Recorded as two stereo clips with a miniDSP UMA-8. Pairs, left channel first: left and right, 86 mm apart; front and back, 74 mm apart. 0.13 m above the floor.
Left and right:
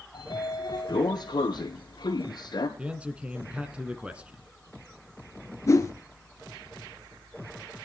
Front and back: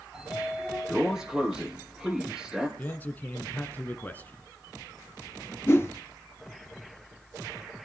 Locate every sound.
0.1 s a sliding door: 100° left, 1.7 m
2.8 s a man speaking: 30° right, 1.1 m
5.7 s a whoosh: 50° left, 1.6 m